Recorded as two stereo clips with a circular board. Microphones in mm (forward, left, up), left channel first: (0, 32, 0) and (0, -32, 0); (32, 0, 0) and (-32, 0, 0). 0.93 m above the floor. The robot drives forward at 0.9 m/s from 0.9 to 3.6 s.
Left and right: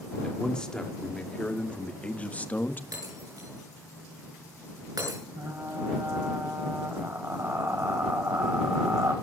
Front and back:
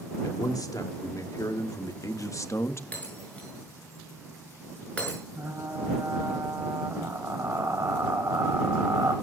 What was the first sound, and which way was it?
A man speaking, 15° left.